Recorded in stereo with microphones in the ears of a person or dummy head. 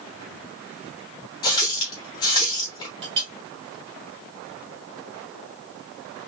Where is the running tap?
20° left (ahead or behind), 1.1 m.